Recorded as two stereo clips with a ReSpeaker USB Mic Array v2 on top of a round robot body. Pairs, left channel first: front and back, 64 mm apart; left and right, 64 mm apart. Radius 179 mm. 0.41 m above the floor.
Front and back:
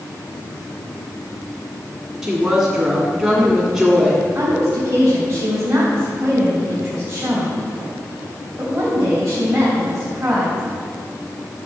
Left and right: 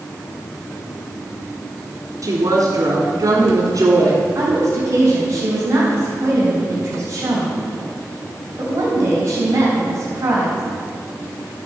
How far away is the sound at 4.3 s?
About 3.5 m.